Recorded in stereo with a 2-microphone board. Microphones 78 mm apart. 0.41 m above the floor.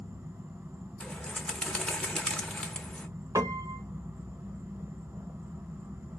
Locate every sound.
0.0 s an insect: 30° right (ahead or behind), 1.4 m
1.0 s a bird: 10° left (ahead or behind), 1.0 m
3.4 s a piano: 45° right (ahead or behind), 0.8 m